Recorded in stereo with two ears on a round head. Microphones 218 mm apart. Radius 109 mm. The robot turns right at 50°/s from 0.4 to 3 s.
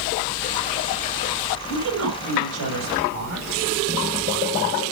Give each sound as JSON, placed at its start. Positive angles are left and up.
{"t": 1.7, "sound": "a woman speaking", "azimuth_deg": -135, "distance_m": 4.5}